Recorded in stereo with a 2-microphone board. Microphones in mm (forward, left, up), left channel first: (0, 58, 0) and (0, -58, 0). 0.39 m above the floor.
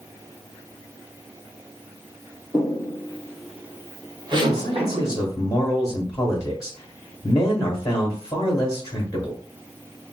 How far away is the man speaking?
About 1.2 m.